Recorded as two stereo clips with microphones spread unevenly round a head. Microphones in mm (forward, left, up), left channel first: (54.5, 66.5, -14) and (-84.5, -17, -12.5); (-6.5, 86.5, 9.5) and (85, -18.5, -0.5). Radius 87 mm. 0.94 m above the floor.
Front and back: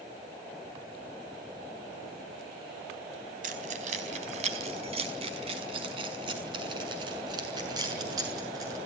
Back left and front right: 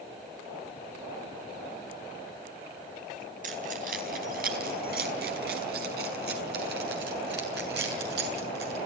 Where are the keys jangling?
100° right, 4 m; by 8.8 s 80° right, 7.5 m.